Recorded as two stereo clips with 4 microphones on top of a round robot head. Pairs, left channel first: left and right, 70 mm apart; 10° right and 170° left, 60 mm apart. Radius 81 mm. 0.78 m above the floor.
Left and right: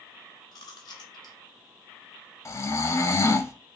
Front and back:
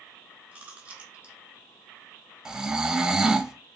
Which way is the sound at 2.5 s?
100° left.